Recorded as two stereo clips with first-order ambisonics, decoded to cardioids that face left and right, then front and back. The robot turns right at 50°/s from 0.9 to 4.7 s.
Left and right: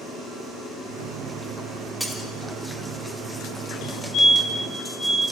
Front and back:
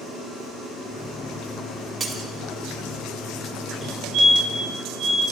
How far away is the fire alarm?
About 5.5 m.